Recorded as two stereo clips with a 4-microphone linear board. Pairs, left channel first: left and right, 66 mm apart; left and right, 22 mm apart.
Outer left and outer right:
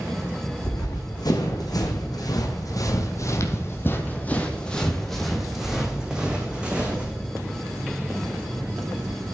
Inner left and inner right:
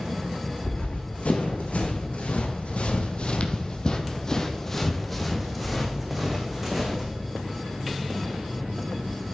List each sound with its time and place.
0.6 s running footsteps: 75° left (ahead or behind), 2.5 m; by 7.2 s 20° right (ahead or behind), 3 m